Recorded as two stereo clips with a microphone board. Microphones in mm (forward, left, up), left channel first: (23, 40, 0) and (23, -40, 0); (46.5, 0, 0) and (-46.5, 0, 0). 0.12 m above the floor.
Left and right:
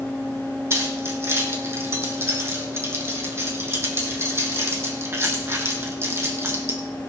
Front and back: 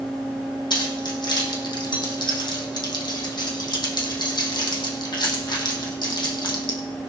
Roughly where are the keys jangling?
Ahead right.